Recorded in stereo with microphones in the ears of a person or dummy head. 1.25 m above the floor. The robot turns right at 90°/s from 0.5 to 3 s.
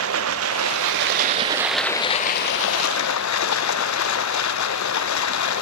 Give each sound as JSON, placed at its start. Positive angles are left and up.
{"t": 0.0, "sound": "running water", "azimuth_deg": -115, "distance_m": 0.8}